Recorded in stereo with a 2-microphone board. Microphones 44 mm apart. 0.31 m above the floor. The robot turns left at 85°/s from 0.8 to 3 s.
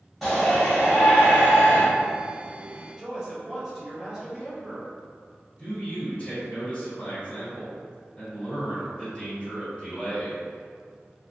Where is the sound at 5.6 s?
25° left (ahead or behind), 1.6 m.